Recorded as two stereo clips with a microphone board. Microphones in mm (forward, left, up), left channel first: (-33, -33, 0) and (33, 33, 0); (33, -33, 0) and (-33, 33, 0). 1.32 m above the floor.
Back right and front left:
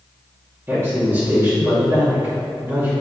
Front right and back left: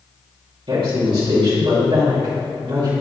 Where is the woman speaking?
110° left, 2.5 m.